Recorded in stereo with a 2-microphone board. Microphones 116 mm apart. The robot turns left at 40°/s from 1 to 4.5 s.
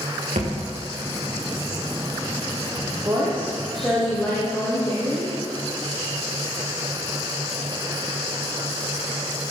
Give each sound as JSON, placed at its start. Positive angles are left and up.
{"t": 0.3, "sound": "a thud", "side_deg": -85, "distance_m": 5.5}
{"t": 3.0, "sound": "a woman speaking", "azimuth_deg": -150, "distance_m": 5.0}